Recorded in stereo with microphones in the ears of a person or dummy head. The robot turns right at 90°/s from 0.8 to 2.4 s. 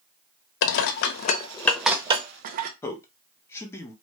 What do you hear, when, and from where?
0.6 s dishes clattering: 65° left (ahead or behind), 0.5 m; by 2.7 s 45° right (ahead or behind), 0.5 m
2.8 s a man speaking: 15° left (ahead or behind), 1.0 m